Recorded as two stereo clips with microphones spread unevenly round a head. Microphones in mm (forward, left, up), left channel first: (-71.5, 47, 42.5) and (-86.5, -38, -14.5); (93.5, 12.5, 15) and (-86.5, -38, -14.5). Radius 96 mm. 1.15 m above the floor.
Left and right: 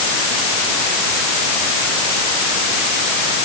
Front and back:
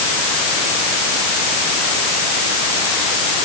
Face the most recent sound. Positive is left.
No sound to turn to.